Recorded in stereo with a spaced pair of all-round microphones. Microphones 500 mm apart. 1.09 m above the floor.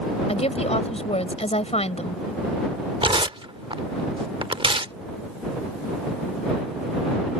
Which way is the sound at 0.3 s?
10° left (ahead or behind).